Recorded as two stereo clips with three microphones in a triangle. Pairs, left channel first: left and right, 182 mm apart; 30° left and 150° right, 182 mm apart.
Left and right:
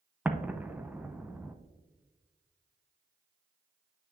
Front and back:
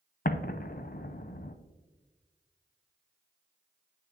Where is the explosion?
10° right, 0.5 m.